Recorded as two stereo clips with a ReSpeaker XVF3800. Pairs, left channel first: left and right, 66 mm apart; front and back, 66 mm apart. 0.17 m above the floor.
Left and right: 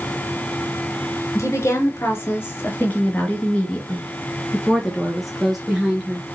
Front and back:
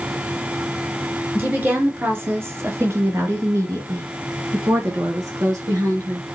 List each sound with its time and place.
1.4 s a woman speaking: 120° left, 2.5 m; by 6.3 s 170° right, 2.5 m